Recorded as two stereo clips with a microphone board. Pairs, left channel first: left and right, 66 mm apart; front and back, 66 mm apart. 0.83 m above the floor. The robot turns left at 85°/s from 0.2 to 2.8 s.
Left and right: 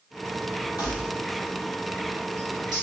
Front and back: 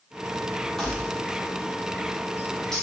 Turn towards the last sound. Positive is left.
turn(degrees=-90)